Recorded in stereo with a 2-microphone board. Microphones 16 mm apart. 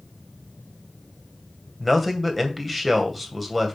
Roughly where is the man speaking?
Centre.